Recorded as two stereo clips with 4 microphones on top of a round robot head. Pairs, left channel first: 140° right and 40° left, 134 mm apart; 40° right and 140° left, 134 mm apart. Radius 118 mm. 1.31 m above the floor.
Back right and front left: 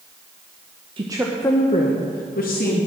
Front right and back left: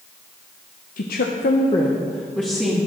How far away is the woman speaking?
About 0.9 m.